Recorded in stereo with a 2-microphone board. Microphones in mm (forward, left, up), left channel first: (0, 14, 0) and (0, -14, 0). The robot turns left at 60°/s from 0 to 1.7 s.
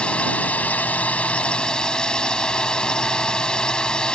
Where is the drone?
135° left; by 4.1 s 35° left.